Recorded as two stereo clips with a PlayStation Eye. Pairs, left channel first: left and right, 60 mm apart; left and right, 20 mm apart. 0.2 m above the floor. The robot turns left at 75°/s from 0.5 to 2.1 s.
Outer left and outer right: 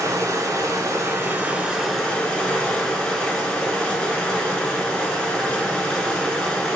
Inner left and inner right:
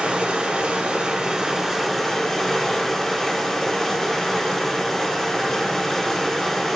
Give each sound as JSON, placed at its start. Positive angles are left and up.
{"t": 0.0, "sound": "running water", "azimuth_deg": -75, "distance_m": 0.7}